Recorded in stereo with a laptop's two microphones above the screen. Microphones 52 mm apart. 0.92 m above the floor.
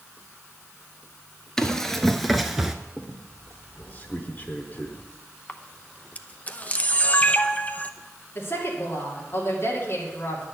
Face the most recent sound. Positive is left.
turn(degrees=50)  # may be behind; listen again after turning